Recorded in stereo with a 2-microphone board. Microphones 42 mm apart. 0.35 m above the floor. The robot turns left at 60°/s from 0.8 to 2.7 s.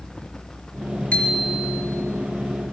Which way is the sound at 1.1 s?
35° left.